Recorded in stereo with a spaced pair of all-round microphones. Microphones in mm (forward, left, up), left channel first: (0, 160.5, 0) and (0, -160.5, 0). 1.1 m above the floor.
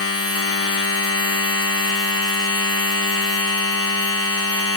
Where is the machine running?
45° left (ahead or behind), 0.8 m.